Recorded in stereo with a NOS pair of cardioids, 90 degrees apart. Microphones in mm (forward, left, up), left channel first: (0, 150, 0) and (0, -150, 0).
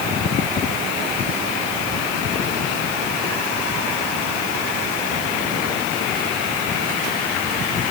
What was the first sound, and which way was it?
Only background noise.